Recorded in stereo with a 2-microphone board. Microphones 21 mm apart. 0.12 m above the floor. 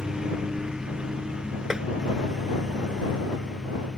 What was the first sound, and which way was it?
A lawn mower, 35° right (ahead or behind).